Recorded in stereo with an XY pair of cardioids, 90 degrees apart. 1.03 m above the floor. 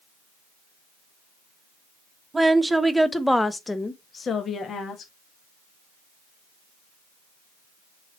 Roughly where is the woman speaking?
Ahead.